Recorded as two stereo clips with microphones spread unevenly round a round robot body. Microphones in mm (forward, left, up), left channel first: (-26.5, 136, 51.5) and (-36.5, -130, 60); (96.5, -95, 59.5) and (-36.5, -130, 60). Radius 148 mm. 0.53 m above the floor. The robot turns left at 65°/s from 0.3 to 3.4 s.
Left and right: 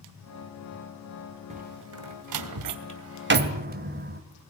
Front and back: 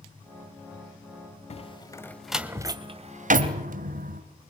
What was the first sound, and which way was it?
A door slam, 25° right.